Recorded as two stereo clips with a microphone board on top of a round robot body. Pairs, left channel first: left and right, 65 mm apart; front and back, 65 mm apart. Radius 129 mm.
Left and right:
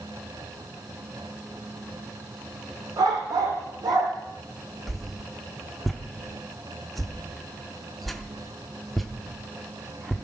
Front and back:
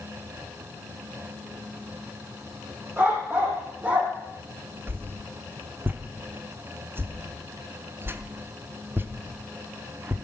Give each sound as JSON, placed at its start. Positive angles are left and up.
{"t": 3.0, "sound": "a dog barking", "azimuth_deg": -125, "distance_m": 4.5}
{"t": 4.9, "sound": "a whoosh", "azimuth_deg": 180, "distance_m": 1.1}